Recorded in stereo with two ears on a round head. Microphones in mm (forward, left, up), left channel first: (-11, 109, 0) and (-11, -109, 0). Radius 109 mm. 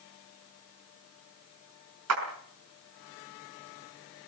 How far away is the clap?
About 5 m.